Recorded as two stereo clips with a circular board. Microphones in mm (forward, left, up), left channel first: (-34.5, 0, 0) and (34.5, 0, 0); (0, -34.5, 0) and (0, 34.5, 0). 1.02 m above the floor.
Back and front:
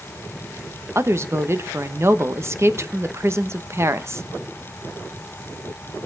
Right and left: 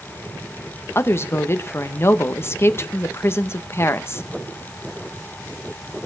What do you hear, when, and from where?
0.9 s a woman speaking: 45° right, 1.0 m